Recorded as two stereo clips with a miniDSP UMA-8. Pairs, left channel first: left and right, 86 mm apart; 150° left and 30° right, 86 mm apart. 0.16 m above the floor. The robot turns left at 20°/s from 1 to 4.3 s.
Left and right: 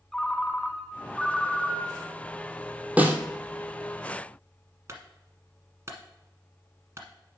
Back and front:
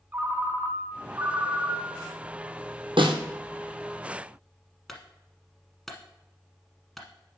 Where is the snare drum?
15° right, 1.2 m; by 3.2 s 20° right, 1.2 m.